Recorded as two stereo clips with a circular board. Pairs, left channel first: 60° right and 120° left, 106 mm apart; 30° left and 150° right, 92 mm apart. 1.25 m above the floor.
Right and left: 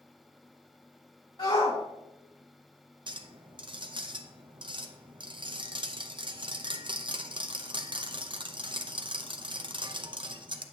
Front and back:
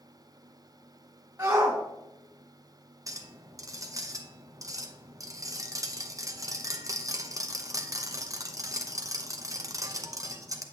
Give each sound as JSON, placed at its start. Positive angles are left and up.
{"t": 1.4, "sound": "a shout", "azimuth_deg": -85, "distance_m": 2.0}
{"t": 3.1, "sound": "a clink", "azimuth_deg": 160, "distance_m": 0.7}